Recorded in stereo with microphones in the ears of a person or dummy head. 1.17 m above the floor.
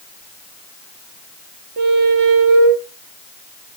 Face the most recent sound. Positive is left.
turn(degrees=-50)  # may be behind; listen again after turning